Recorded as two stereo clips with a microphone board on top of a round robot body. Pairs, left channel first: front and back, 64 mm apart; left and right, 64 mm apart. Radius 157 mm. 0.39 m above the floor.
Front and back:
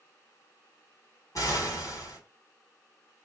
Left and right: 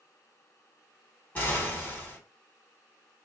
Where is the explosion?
25° left, 2.5 m.